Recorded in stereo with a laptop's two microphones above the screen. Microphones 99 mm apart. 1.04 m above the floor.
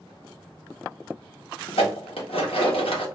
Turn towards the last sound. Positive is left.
turn(degrees=75)  # may be behind; listen again after turning